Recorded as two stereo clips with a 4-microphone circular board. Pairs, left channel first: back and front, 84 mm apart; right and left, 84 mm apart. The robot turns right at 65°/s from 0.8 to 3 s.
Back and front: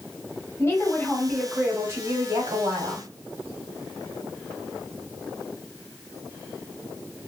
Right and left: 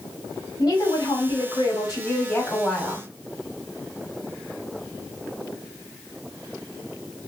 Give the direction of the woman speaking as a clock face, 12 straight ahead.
4 o'clock.